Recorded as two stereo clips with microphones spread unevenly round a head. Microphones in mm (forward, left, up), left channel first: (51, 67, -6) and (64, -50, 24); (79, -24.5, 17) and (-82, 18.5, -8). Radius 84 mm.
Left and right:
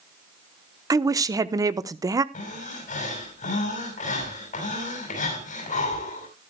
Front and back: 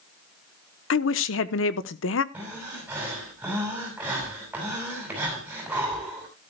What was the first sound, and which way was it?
A woman speaking, 20° right.